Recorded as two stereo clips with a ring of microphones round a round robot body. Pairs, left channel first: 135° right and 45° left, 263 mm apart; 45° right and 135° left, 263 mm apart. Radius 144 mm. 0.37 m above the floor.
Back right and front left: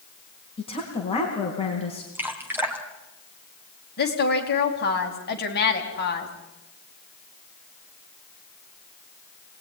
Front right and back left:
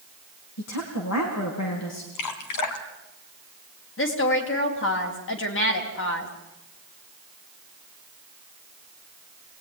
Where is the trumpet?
No trumpet in this recording.